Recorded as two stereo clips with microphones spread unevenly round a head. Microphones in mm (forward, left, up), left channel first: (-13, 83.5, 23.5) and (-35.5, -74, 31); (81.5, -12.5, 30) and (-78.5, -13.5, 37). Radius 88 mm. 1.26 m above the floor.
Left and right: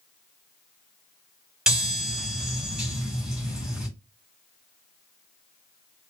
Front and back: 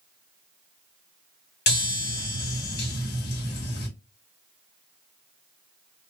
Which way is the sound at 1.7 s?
15° right.